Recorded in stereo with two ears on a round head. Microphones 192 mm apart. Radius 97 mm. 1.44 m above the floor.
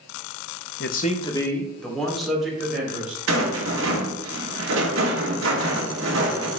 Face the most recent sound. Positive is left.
turn(degrees=-60)  # may be behind; listen again after turning